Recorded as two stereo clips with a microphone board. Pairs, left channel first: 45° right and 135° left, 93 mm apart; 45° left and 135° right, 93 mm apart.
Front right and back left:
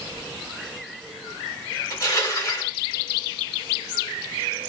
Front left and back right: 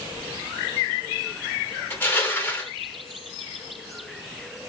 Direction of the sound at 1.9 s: 15° right.